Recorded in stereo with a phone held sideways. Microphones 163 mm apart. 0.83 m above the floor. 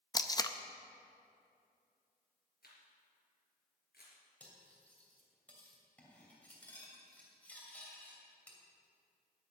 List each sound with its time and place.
0.1 s tape being pulled: 25° left (ahead or behind), 0.5 m
2.6 s a camera shutter: 70° left (ahead or behind), 3.5 m
4.4 s cutlery clinking: 10° left (ahead or behind), 2.5 m